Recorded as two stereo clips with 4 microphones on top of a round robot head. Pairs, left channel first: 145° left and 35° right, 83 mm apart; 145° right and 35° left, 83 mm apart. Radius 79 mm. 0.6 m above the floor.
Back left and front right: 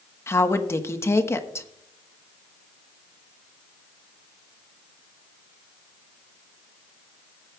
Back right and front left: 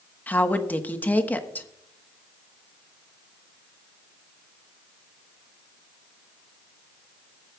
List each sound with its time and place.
0.3 s a woman speaking: 165° left, 1.2 m